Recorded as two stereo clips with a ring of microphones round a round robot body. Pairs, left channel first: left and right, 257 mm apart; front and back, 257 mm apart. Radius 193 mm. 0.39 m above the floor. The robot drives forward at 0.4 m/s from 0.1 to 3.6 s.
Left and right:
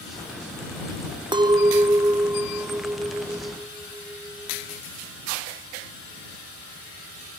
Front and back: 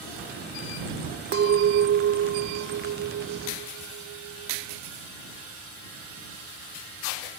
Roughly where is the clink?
Behind right.